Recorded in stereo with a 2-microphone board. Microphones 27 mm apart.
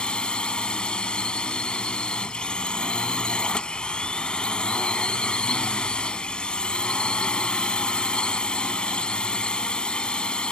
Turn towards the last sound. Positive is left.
turn(degrees=35)  # may be behind; listen again after turning